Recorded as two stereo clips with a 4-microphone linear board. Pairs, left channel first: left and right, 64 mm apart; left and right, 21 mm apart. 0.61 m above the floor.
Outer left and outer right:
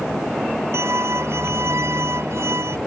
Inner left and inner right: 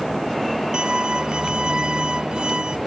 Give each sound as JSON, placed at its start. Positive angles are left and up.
{"t": 0.7, "sound": "a violin", "side_deg": -45}